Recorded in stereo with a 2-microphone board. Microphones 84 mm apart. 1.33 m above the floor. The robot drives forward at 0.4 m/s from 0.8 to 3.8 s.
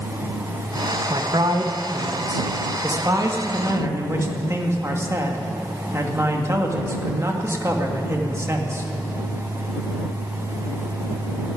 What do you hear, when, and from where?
1.1 s a man speaking: 65° right (ahead or behind), 1.3 m; by 8.8 s 35° right (ahead or behind), 2.0 m